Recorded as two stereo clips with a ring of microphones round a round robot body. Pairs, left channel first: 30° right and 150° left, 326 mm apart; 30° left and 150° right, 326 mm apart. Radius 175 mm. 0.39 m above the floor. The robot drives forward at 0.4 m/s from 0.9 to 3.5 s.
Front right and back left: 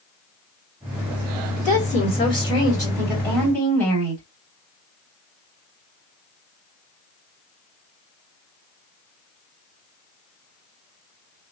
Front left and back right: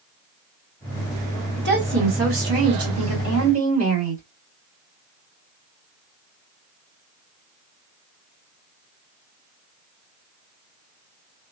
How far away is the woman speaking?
About 2 m.